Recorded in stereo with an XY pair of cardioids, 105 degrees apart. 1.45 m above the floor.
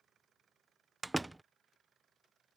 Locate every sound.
1.0 s a door slam: 10° right